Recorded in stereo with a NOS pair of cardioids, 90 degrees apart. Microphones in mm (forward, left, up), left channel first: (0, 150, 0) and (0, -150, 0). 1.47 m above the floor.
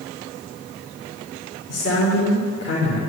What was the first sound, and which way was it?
A man speaking, 40° left.